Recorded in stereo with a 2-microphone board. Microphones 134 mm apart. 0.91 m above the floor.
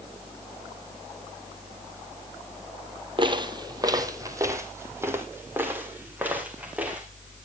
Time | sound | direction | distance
3.2 | footsteps | 35° right (ahead or behind) | 1.4 m